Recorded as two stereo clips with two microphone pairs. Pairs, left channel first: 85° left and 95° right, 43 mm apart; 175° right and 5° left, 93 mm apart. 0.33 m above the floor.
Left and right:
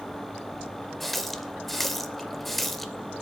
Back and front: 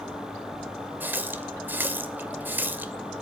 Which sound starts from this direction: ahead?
A running tap, at 1.0 s.